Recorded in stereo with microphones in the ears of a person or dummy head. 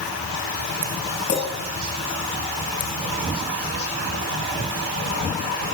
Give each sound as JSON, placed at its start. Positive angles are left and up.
{"t": 1.3, "sound": "a clink", "side_deg": 70, "distance_m": 4.5}